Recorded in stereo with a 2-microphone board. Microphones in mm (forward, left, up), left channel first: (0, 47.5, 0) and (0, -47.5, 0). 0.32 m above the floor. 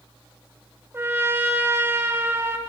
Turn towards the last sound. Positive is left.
turn(degrees=-25)  # may be behind; listen again after turning